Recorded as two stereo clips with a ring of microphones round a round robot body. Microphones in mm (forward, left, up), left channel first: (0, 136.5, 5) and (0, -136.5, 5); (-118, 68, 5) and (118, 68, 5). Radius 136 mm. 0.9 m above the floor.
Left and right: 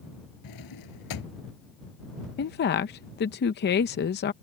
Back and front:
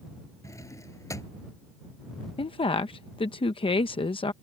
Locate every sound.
0.4 s a drawer: 100° left
2.4 s a woman speaking: 120° left